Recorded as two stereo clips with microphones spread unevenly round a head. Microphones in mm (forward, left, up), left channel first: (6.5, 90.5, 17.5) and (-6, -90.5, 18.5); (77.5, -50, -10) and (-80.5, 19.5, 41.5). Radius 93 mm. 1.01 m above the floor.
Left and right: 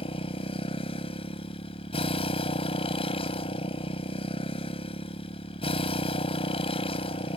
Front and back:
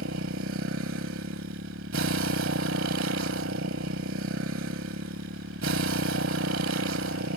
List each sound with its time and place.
0.0 s a motorcycle: 145° left